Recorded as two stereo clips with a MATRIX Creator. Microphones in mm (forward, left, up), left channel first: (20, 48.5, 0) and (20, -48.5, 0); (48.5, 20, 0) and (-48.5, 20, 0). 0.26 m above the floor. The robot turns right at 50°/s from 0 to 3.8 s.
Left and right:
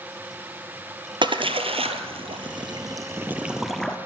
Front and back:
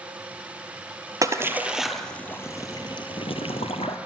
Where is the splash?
125° right, 0.9 m; by 4.0 s 5° left, 0.9 m.